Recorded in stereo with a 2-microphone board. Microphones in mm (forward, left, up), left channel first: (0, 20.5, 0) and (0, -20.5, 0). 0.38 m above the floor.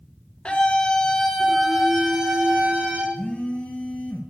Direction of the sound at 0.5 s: 30° left (ahead or behind).